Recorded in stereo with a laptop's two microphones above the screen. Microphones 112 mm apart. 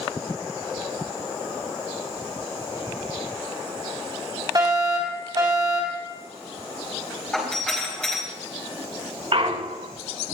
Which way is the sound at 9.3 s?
65° right (ahead or behind).